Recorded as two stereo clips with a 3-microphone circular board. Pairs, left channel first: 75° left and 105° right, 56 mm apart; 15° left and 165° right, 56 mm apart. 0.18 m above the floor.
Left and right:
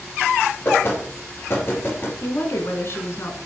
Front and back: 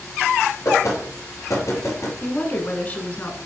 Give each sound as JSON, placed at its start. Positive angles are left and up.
{"t": 0.7, "sound": "knocking", "azimuth_deg": 35, "distance_m": 3.0}
{"t": 2.2, "sound": "a woman speaking", "azimuth_deg": 65, "distance_m": 1.5}